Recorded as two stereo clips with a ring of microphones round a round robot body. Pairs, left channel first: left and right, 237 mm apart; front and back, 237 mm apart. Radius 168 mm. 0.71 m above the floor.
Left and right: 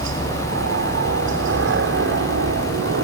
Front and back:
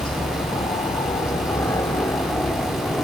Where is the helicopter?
75° right; by 3.0 s 85° right.